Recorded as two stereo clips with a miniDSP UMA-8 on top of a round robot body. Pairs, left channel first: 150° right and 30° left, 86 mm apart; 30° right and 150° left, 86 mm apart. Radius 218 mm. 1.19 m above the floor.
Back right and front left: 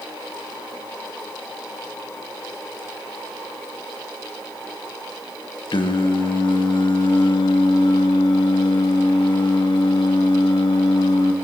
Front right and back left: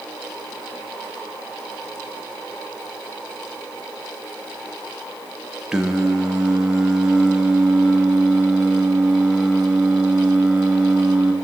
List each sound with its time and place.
5.7 s singing: 130° right, 2 m